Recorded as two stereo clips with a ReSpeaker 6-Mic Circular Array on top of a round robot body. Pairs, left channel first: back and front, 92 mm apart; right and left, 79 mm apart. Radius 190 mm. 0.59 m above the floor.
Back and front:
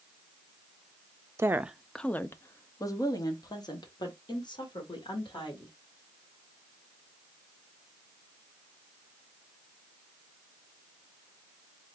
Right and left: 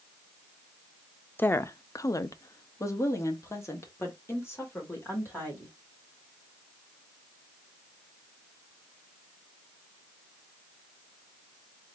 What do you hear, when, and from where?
1.4 s a woman speaking: 40° right, 0.7 m; by 5.7 s 150° right, 3 m